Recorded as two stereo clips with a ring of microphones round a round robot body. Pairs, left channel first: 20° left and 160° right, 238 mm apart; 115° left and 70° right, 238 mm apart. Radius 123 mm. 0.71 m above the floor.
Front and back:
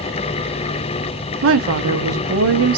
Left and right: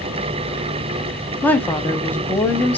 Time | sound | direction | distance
1.4 | a woman speaking | 165° right | 0.7 m